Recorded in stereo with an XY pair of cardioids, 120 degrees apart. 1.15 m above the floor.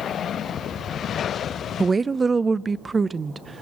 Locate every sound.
1.8 s a woman speaking: 25° right, 0.5 m